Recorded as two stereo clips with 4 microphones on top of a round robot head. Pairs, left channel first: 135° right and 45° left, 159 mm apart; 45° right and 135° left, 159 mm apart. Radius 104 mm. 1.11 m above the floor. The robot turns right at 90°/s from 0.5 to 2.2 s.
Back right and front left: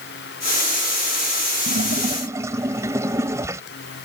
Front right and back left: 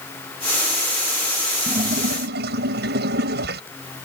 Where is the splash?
70° left; by 3.6 s 120° left.